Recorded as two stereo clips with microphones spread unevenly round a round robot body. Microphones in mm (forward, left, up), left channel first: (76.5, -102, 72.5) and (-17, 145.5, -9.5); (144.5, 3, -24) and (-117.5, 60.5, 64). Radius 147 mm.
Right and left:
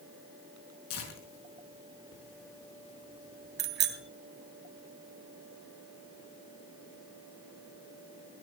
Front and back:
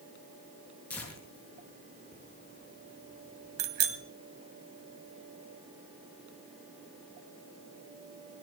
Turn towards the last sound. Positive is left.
turn(degrees=155)